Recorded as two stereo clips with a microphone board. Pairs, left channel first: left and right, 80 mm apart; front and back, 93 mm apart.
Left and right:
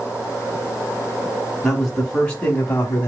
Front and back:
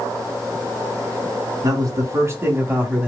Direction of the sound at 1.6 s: 175° left.